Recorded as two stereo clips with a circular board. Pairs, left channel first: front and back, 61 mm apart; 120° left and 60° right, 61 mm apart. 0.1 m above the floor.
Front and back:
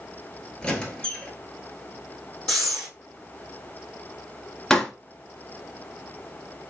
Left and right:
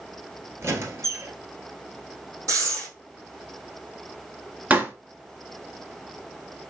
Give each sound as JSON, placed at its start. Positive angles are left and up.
{"t": 0.6, "sound": "a squeak", "azimuth_deg": -70, "distance_m": 0.9}
{"t": 2.5, "sound": "breathing", "azimuth_deg": -75, "distance_m": 2.5}
{"t": 4.7, "sound": "a pop", "azimuth_deg": -75, "distance_m": 0.7}